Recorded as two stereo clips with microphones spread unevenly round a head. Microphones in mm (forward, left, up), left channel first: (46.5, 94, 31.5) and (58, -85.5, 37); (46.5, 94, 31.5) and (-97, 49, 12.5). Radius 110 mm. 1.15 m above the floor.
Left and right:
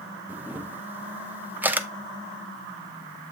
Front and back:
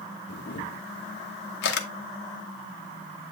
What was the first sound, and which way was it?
A camera shutter, 5° right.